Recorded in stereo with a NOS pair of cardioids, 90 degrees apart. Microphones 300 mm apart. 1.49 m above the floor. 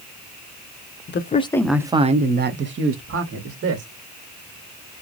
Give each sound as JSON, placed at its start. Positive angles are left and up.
{"t": 1.1, "sound": "a man speaking", "azimuth_deg": 40, "distance_m": 0.7}